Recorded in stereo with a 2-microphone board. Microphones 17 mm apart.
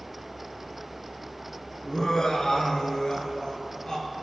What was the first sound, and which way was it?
Laughter, 40° left (ahead or behind).